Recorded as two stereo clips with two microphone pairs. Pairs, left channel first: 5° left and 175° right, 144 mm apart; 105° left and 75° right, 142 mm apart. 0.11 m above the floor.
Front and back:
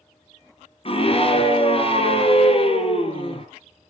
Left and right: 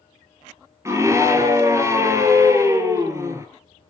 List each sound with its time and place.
0.8 s a scream: 15° right, 1.9 m